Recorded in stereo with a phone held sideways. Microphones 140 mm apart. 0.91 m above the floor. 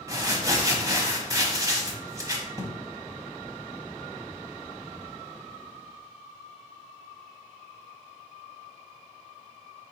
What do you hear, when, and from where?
0.1 s crumpling: 25° right (ahead or behind), 0.8 m